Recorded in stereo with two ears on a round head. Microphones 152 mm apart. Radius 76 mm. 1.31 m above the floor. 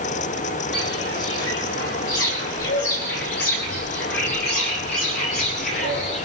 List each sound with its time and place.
0.7 s footsteps: 75° left (ahead or behind), 6 m; by 6.2 s 45° left (ahead or behind), 7 m